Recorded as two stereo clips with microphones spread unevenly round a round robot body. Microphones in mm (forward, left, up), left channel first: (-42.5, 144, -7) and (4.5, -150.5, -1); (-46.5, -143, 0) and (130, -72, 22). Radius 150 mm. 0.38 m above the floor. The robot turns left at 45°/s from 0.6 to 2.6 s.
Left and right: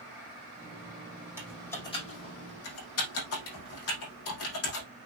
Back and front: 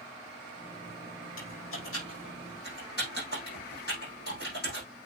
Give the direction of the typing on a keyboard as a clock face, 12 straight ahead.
5 o'clock.